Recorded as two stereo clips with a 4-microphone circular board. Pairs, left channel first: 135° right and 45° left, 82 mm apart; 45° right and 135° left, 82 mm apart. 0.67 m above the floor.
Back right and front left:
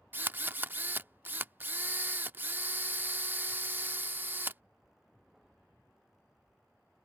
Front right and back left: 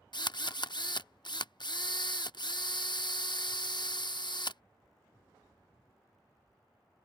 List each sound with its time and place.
0.1 s a drill: 20° right